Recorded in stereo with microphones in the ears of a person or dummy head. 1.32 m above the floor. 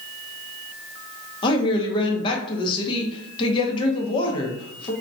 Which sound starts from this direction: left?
A woman speaking, at 1.4 s.